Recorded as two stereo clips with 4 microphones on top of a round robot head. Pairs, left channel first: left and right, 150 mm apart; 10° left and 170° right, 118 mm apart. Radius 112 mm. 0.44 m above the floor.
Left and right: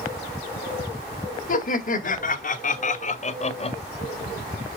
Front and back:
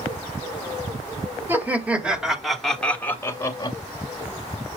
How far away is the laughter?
About 2 m.